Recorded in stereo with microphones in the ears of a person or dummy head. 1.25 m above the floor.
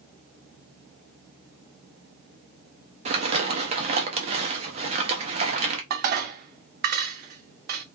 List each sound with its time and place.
3.0 s crumpling: 35° right (ahead or behind), 0.6 m
5.9 s dishes clattering: 55° right (ahead or behind), 0.6 m